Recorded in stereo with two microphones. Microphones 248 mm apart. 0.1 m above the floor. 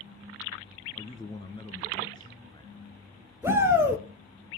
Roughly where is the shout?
Centre.